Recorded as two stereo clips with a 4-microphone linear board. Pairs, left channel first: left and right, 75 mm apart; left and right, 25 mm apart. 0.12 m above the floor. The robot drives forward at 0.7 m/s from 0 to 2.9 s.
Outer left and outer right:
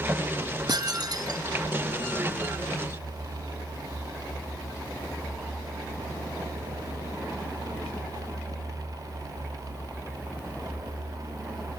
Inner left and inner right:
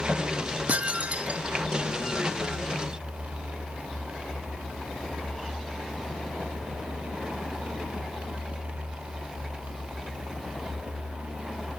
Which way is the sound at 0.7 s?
65° right (ahead or behind).